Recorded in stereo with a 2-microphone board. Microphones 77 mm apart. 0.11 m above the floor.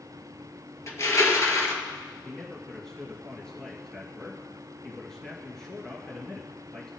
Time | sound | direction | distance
0.9 | crushing | 40° left (ahead or behind) | 1.9 m
2.2 | a man speaking | 10° left (ahead or behind) | 2.5 m